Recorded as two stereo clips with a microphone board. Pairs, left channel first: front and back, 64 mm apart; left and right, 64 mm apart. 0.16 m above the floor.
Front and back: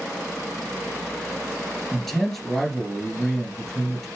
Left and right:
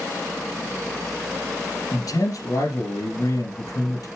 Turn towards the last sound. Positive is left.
turn(degrees=85)